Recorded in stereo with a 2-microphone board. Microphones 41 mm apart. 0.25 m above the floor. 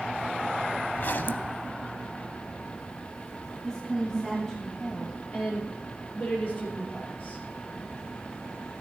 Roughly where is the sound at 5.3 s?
Left.